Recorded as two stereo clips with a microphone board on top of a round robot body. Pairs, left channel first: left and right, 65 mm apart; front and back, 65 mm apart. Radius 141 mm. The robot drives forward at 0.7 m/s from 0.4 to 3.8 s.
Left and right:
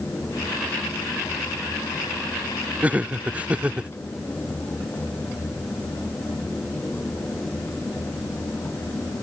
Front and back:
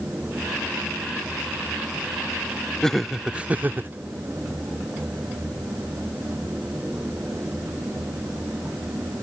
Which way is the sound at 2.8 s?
65° right.